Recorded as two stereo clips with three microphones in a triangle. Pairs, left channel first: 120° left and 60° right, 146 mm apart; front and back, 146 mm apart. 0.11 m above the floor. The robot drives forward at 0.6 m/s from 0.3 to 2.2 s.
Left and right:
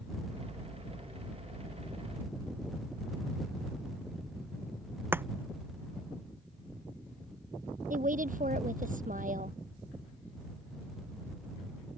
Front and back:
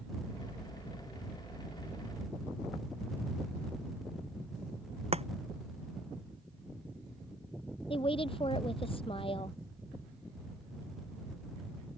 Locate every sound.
5.1 s chopping: 135° right
7.9 s a woman speaking: 50° right